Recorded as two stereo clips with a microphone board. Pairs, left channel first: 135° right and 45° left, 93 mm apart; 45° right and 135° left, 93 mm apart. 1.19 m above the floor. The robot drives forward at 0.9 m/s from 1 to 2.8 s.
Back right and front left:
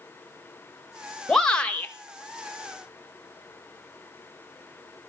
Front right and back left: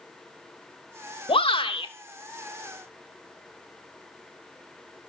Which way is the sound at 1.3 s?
50° right.